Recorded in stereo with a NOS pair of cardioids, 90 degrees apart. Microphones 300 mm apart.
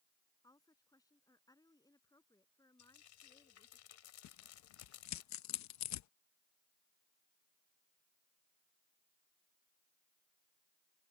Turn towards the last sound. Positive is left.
turn(degrees=65)